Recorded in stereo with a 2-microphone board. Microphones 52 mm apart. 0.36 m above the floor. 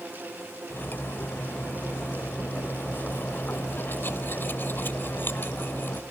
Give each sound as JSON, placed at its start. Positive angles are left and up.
{"t": 0.7, "sound": "cutlery clinking", "side_deg": 45, "distance_m": 0.7}